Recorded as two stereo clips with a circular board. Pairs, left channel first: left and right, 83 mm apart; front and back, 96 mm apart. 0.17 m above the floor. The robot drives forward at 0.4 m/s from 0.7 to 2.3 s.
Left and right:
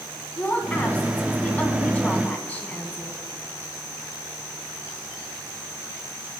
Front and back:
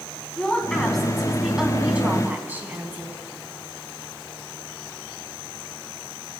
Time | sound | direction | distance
0.4 | a woman speaking | 70° left | 1.4 m